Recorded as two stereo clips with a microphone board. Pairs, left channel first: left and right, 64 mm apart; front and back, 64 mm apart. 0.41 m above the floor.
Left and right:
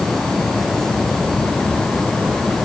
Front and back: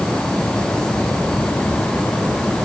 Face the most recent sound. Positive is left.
No sound to turn to.